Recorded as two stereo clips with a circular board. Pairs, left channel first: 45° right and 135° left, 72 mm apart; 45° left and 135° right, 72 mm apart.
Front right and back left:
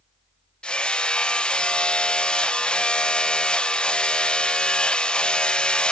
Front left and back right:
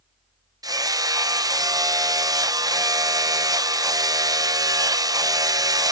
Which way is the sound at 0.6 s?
120° right.